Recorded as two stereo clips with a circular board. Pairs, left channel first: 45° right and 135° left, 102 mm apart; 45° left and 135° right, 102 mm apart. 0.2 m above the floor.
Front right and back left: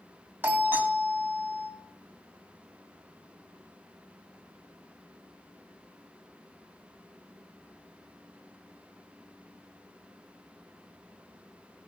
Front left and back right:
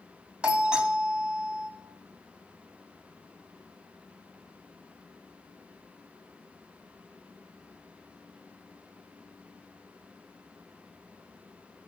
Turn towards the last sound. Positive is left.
turn(degrees=165)